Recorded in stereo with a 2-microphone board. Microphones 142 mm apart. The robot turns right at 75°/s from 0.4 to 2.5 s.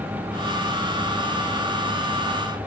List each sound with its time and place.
Only background noise.